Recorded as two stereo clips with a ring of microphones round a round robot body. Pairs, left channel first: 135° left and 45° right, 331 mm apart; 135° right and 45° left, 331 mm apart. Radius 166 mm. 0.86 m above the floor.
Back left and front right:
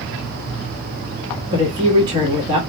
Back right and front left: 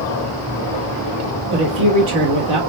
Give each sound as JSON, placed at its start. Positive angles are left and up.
{"t": 1.5, "sound": "a woman speaking", "azimuth_deg": 35, "distance_m": 1.4}